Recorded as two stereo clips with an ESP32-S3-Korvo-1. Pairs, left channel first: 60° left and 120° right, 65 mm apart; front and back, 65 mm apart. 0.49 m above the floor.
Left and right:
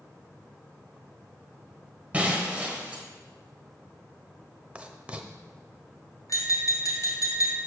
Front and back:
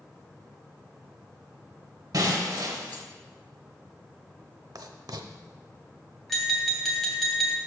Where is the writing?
170° left, 0.7 m.